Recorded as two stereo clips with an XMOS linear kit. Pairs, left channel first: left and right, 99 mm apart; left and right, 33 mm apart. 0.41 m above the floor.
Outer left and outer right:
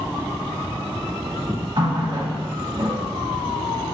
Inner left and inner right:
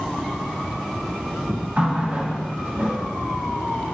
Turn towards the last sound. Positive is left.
turn(degrees=-55)  # may be behind; listen again after turning